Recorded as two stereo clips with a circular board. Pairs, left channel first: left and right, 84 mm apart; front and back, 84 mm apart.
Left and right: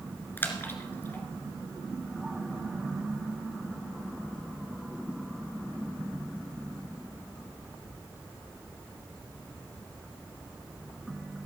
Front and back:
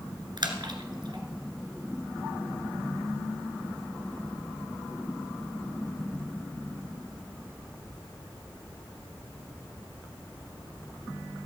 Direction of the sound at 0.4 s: 155° left.